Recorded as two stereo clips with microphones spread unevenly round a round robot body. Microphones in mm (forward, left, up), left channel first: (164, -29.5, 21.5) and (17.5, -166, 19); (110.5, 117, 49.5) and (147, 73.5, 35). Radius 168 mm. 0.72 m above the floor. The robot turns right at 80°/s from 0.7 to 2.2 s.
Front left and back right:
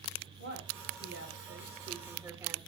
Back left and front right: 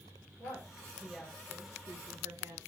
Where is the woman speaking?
Straight behind, 3.5 m; by 2.6 s 60° right, 3.5 m.